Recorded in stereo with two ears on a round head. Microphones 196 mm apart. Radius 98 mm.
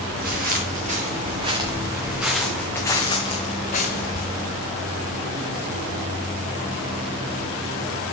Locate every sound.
0.1 s footsteps: 45° right (ahead or behind), 2.5 m; by 4.2 s 45° left (ahead or behind), 2 m